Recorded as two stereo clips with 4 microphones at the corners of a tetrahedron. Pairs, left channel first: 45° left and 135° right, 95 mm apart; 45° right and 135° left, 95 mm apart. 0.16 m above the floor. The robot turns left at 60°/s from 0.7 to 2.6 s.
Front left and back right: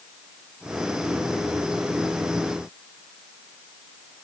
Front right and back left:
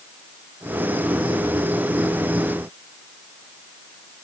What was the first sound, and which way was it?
Only background noise.